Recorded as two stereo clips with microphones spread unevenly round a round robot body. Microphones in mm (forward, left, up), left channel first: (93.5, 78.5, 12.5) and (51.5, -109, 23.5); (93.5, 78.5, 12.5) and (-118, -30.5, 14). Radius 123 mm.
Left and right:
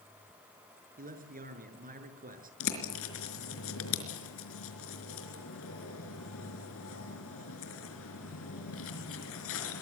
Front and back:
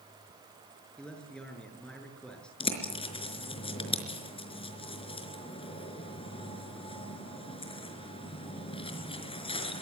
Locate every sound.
1.0 s a man speaking: 60° right, 6.5 m
2.6 s a bird: 95° left, 4.5 m